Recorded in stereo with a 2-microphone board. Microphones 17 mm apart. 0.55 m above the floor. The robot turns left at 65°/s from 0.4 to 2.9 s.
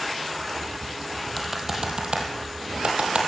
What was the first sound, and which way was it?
Typing on a keyboard, centre (ahead or behind).